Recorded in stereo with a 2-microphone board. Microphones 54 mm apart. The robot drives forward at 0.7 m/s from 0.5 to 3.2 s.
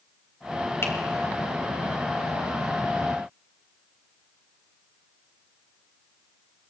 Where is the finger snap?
50° left (ahead or behind), 1.8 m.